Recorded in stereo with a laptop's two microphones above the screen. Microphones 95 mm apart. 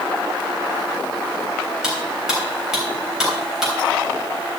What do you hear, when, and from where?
1.8 s cutlery clinking: 5° right (ahead or behind), 3 m